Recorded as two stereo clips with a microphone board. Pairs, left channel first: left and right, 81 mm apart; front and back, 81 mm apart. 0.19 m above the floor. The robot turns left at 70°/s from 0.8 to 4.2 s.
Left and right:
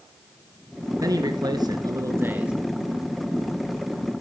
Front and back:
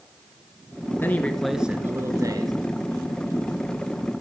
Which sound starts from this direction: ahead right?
A man speaking, at 1.0 s.